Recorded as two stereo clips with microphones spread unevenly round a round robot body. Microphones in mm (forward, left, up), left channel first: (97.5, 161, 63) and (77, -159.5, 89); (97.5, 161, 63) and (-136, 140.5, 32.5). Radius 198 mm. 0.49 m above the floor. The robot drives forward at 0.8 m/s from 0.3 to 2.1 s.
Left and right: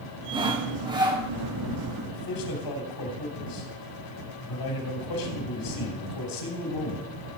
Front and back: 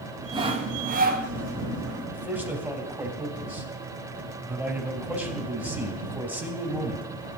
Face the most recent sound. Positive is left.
turn(degrees=100)